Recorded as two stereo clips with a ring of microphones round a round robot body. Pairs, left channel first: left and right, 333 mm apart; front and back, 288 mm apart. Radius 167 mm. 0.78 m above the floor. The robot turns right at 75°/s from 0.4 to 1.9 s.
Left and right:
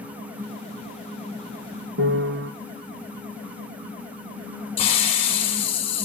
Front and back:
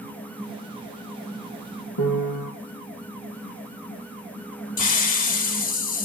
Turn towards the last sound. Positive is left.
turn(degrees=15)